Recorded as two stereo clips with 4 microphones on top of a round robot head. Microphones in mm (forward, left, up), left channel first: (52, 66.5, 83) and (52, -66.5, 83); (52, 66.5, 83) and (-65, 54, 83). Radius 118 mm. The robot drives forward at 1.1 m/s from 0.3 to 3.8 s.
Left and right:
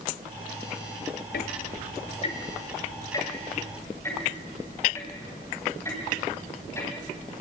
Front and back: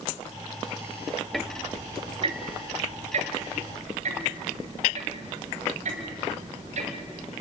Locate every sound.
1.3 s ticking: 95° left, 0.8 m; by 7.3 s 165° left, 3 m